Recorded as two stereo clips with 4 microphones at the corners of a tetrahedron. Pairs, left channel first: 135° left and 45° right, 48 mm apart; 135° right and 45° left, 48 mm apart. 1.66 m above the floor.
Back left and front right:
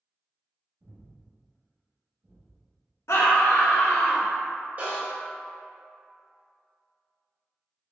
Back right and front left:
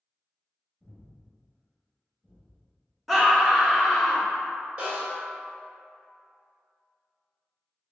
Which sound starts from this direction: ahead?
A snare drum, at 4.8 s.